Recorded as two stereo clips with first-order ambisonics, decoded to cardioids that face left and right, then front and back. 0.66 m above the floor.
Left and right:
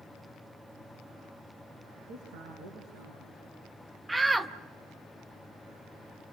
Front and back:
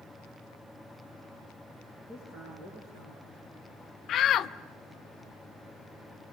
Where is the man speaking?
110° right, 8 m.